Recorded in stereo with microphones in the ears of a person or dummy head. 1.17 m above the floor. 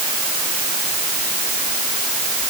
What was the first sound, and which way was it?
Only background noise.